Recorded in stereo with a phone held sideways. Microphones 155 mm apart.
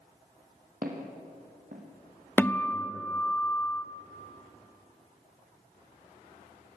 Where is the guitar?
15° left (ahead or behind), 1.0 m.